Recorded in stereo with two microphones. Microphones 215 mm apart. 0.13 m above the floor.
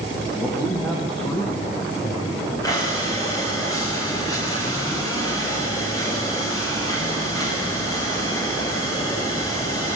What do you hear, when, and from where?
0.4 s a man speaking: 5° left (ahead or behind), 6.5 m; by 2.5 s 10° left (ahead or behind), 8 m
2.6 s breathing: 15° left (ahead or behind), 7.5 m